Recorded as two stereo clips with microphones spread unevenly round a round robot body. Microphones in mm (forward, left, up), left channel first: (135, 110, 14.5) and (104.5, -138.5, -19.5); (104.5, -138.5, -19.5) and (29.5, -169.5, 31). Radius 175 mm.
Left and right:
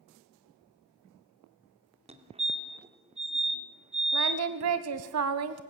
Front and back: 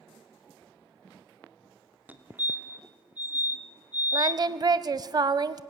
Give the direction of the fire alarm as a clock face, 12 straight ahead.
2 o'clock.